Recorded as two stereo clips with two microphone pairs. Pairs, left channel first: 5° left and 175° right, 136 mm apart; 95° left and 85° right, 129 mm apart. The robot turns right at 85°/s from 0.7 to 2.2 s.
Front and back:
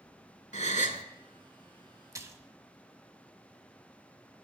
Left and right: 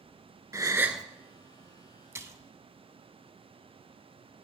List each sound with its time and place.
0.5 s a gasp: 20° right, 0.6 m; by 1.0 s 10° left, 0.6 m
2.1 s a splash: 135° right, 0.5 m; by 2.5 s 125° right, 0.5 m